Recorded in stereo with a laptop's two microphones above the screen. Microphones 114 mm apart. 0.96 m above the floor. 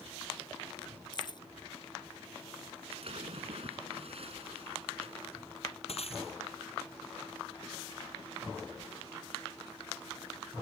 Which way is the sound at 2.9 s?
60° right (ahead or behind).